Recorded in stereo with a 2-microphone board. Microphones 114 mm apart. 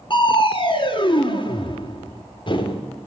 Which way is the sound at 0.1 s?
45° left (ahead or behind).